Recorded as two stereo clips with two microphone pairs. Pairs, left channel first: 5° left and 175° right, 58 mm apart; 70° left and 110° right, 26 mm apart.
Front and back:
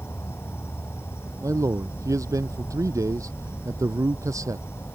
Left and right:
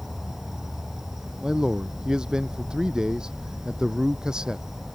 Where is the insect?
35° right.